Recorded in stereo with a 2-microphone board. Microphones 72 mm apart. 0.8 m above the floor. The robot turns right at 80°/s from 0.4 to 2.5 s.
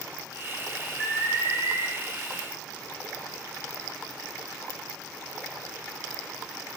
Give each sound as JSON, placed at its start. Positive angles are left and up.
{"t": 1.0, "sound": "an alarm", "azimuth_deg": -165, "distance_m": 1.6}